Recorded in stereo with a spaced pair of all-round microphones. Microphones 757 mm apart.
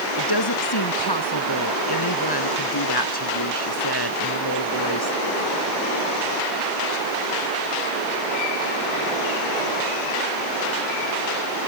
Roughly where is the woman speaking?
Left.